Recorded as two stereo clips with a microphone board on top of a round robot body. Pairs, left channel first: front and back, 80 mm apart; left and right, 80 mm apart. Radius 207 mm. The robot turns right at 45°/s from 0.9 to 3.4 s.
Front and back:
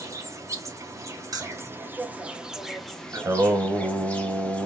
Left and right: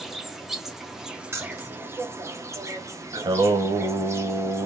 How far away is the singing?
About 0.9 m.